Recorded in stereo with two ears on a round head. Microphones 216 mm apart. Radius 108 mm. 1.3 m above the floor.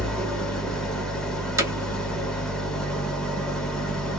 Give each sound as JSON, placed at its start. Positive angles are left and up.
{"t": 0.0, "sound": "an engine running", "side_deg": 0, "distance_m": 0.9}
{"t": 1.6, "sound": "hammering", "side_deg": -10, "distance_m": 0.8}